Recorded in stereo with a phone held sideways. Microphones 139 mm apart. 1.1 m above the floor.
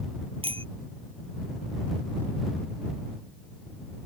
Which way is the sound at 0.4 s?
40° right (ahead or behind).